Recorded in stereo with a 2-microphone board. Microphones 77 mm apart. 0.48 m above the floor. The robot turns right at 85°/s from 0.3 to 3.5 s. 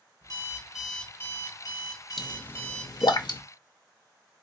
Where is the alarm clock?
45° right, 1.3 m; by 3.2 s 160° right, 1.3 m.